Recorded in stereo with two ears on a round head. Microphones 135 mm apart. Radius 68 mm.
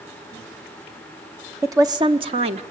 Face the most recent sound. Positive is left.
turn(degrees=-45)  # may be behind; listen again after turning